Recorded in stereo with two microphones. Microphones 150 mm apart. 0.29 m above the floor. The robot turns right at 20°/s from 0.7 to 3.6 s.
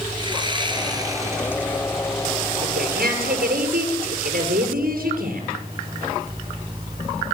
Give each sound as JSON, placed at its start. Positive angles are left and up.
{"t": 0.2, "sound": "sawing", "side_deg": -30, "distance_m": 3.0}
{"t": 2.6, "sound": "a woman speaking", "side_deg": -80, "distance_m": 6.5}